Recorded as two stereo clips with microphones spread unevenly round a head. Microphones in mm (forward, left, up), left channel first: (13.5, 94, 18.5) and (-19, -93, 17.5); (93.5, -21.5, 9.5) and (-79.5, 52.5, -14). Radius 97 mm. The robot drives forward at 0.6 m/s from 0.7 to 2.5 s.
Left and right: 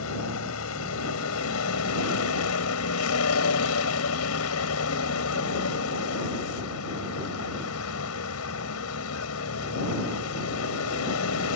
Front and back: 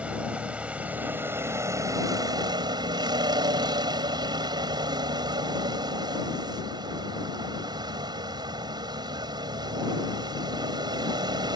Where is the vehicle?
70° left; by 11.6 s 85° left.